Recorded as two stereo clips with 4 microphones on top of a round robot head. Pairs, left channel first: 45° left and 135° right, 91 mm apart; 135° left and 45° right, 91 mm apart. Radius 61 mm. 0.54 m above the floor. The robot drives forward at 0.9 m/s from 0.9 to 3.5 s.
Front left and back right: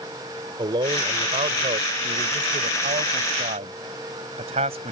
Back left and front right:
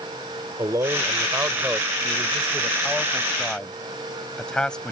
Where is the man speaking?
100° right; by 4.9 s 145° right.